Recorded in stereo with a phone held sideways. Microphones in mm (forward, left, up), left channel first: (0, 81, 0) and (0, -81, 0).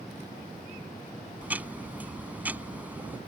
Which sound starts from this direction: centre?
Ticking, at 1.4 s.